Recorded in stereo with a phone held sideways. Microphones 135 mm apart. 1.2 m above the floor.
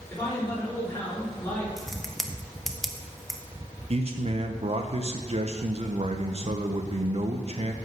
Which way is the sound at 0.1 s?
15° left (ahead or behind).